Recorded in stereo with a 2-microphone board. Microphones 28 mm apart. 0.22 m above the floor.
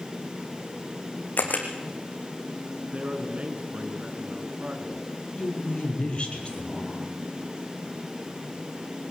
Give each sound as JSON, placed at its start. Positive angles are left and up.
{"t": 1.4, "sound": "a camera shutter", "side_deg": 70, "distance_m": 4.0}
{"t": 2.9, "sound": "a man speaking", "side_deg": -45, "distance_m": 3.0}
{"t": 5.4, "sound": "a woman speaking", "side_deg": 35, "distance_m": 5.5}